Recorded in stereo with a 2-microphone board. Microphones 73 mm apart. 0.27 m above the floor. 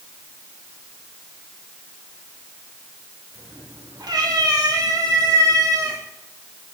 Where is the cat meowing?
75° right (ahead or behind), 6 m; by 6.0 s 50° right (ahead or behind), 3.5 m.